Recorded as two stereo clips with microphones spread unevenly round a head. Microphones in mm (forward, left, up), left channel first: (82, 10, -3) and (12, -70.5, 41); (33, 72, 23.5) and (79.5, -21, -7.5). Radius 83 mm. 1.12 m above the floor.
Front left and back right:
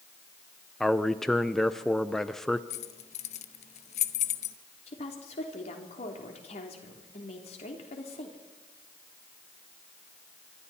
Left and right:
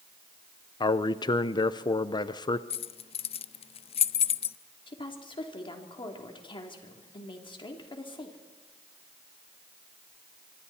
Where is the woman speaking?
75° left, 3 m.